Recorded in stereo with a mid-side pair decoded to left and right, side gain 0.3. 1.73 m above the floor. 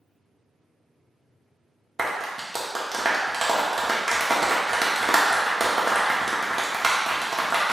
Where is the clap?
30° right, 1.3 m.